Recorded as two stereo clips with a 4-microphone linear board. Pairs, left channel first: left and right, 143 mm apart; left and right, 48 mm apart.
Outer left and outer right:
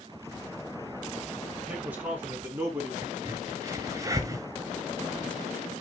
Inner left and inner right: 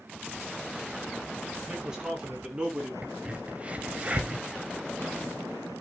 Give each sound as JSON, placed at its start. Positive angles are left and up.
{"t": 1.7, "sound": "a man speaking", "side_deg": -10, "distance_m": 5.0}
{"t": 3.0, "sound": "a crack", "side_deg": -25, "distance_m": 1.6}